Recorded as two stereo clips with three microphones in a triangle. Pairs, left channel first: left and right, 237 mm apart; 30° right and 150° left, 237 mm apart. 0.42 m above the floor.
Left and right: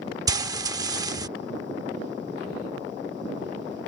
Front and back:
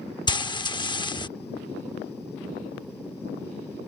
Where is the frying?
50° right.